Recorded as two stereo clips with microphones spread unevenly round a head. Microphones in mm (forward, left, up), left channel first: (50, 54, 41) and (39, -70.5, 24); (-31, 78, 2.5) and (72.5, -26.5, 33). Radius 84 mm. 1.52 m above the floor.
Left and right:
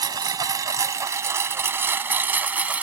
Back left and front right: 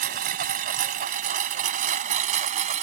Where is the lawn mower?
35° right; by 2.8 s 15° right.